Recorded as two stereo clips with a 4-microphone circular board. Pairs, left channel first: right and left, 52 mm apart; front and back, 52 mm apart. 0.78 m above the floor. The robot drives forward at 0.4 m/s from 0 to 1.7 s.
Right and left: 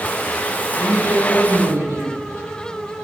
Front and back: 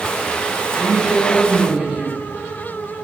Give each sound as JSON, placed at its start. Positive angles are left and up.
{"t": 0.8, "sound": "a woman speaking", "azimuth_deg": 100, "distance_m": 5.5}